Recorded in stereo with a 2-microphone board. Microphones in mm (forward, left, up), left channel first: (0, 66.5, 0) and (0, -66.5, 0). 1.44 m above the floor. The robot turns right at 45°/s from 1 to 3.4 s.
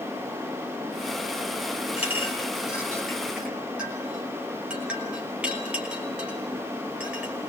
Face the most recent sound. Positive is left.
turn(degrees=-10)  # may be behind; listen again after turning